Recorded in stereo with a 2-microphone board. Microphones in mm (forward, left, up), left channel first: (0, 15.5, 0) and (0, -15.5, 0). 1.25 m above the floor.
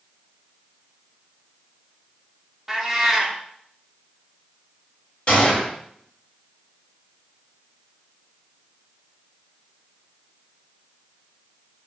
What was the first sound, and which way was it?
A cat meowing, 5° right (ahead or behind).